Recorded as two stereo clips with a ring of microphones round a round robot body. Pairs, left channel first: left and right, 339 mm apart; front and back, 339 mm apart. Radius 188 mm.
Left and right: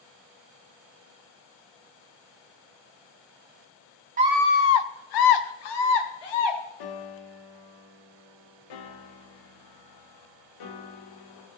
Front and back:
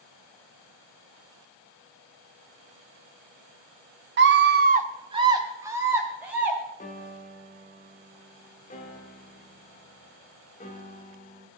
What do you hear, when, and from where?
4.2 s a scream: 140° right, 0.7 m; by 6.6 s 95° left, 3 m
6.8 s a piano: 70° left, 1.3 m